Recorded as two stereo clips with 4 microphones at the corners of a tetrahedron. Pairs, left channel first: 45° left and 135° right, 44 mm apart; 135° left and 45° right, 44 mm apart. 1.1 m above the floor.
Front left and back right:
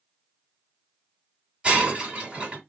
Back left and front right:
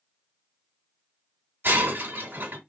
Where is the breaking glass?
70° right, 2 m.